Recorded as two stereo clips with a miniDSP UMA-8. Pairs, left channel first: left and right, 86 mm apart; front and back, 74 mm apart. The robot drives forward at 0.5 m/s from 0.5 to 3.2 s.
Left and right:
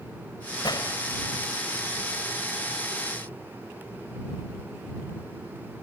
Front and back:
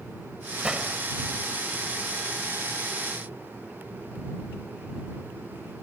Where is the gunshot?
105° left; by 1.0 s 110° left.